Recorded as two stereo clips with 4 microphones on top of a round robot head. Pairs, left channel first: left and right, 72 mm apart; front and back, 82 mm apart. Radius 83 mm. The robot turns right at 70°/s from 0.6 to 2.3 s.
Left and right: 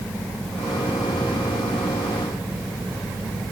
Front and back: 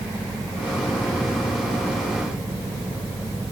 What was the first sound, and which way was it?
Only background noise.